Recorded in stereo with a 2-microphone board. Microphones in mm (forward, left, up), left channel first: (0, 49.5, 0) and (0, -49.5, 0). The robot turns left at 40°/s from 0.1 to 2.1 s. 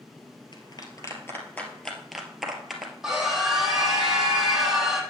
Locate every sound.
0.5 s a clap: 50° left (ahead or behind), 1.9 m; by 2.9 s centre (ahead or behind), 1.9 m
3.0 s a scream: 5° right (ahead or behind), 3.5 m